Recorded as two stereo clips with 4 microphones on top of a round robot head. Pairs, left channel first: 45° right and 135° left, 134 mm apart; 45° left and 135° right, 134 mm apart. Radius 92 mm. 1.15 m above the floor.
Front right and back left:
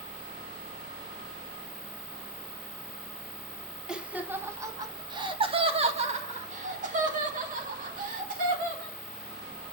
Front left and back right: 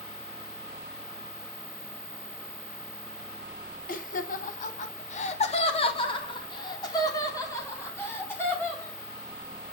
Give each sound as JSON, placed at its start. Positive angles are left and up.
{"t": 3.9, "sound": "laughter", "azimuth_deg": 50, "distance_m": 1.6}